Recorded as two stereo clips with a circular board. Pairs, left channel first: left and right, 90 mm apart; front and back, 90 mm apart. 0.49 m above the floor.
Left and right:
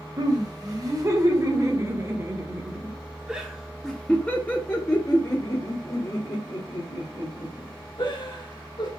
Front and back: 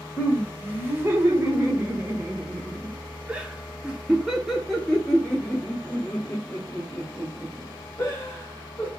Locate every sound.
0.2 s laughter: 125° right, 2 m; by 8.9 s 70° left, 3 m